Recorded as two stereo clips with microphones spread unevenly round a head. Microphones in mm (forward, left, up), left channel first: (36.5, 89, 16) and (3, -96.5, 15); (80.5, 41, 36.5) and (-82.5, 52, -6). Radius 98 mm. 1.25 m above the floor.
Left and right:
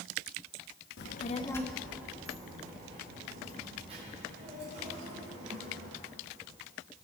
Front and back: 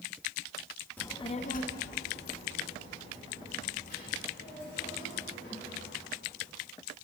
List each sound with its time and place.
1.0 s a child speaking: 65° left, 0.9 m; by 6.0 s 45° right, 7.5 m